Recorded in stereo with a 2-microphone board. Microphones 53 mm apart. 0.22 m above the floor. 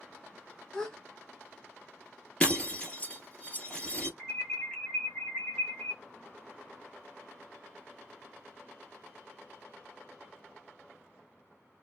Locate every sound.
0.7 s a gasp: 15° left (ahead or behind), 1.2 m
2.4 s breaking glass: 20° left (ahead or behind), 1.3 m
4.2 s an alarm: 20° left (ahead or behind), 1.6 m